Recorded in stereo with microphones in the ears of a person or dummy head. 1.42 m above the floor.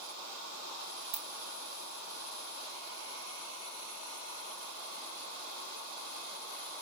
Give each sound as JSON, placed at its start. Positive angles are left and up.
{"t": 1.1, "sound": "a ringtone", "side_deg": -60, "distance_m": 1.0}